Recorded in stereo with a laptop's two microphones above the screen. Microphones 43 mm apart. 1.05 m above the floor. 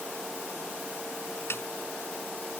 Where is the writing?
I don't hear writing.